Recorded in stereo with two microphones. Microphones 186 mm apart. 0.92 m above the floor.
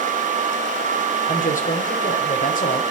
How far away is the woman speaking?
About 3 m.